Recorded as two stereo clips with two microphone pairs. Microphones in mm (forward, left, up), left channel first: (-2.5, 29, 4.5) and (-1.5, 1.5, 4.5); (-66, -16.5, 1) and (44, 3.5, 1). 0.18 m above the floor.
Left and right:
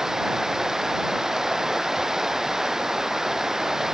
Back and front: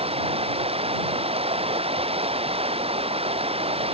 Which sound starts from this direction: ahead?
Running water, at 0.0 s.